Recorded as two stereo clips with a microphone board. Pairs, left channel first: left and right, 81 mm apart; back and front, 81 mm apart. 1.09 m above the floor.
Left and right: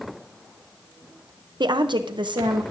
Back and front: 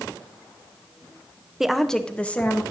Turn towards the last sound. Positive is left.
turn(degrees=-110)